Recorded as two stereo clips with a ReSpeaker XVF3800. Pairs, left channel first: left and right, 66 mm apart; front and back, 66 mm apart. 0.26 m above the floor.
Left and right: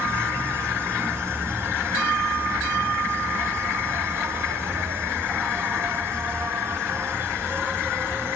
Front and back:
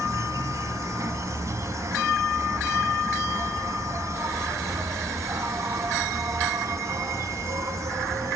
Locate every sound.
0.0 s an insect: 145° right, 0.7 m